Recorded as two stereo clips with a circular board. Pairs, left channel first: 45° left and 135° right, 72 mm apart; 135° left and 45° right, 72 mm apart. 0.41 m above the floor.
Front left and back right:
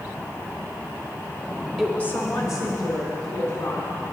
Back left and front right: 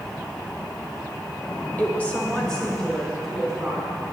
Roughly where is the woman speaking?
Behind left.